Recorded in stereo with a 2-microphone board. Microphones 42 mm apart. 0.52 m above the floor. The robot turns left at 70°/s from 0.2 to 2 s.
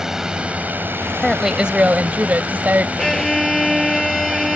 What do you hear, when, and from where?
0.0 s a drone: 15° right; by 4.6 s 140° right
1.2 s a woman speaking: 5° left; by 2.9 s 50° right
3.0 s a violin: 10° left (ahead or behind)